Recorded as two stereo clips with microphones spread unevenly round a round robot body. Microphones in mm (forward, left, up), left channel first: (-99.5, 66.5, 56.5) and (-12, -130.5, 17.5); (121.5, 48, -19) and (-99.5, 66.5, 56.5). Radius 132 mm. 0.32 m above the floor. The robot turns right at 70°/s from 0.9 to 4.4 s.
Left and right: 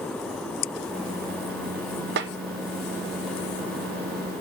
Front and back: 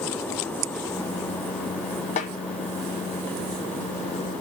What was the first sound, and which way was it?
A snare drum, 50° right.